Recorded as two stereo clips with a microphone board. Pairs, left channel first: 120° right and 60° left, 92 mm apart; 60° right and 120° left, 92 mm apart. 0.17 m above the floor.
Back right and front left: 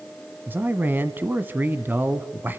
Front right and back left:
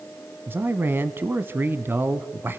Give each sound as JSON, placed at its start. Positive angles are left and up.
{"t": 0.5, "sound": "a man speaking", "azimuth_deg": 95, "distance_m": 1.1}